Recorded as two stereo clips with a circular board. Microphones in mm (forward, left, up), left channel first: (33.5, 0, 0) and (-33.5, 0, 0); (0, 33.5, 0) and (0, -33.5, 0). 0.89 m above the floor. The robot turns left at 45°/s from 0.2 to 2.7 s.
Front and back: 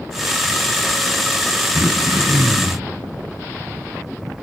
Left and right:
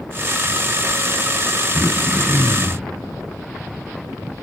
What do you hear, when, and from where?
1.7 s throat clearing: 150° right, 1.8 m; by 2.9 s 165° left, 1.8 m